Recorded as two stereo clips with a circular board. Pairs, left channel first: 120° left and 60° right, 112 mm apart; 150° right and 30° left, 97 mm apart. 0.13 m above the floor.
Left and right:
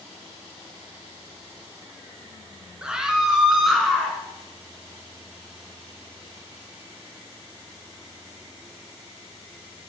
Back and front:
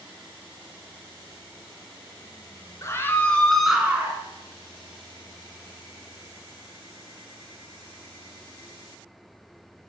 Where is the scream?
135° right, 1.4 m; by 4.2 s 35° left, 1.3 m.